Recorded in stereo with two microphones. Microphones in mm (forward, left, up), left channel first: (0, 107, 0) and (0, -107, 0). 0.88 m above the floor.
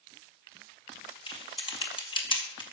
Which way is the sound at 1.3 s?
25° left (ahead or behind).